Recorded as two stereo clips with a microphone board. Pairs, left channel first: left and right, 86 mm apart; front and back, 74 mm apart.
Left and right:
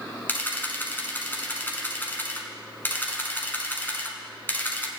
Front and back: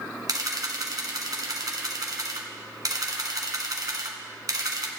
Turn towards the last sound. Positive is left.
turn(degrees=155)